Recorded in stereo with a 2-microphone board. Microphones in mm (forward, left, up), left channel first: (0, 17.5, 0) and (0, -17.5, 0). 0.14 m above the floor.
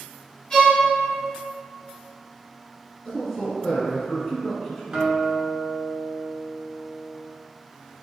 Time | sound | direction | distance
0.5 | a violin | 15° left (ahead or behind) | 1.4 m
3.0 | a man speaking | 5° left (ahead or behind) | 1.4 m
4.9 | a guitar | 30° right (ahead or behind) | 0.6 m